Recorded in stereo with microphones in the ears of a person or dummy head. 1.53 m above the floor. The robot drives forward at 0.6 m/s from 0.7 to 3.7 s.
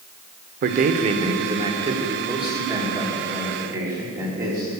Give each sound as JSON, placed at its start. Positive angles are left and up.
{"t": 0.6, "sound": "a man speaking", "side_deg": -45, "distance_m": 0.6}